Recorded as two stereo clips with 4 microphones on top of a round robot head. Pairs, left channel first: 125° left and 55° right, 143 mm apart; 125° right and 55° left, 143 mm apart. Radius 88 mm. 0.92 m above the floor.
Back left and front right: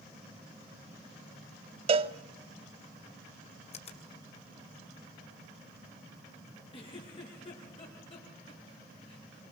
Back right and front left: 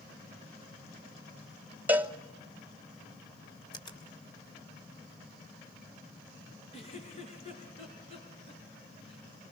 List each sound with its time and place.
1.9 s a cowbell: 20° right, 1.0 m
3.7 s a finger snap: 175° left, 3.5 m
6.7 s a giggle: straight behind, 5 m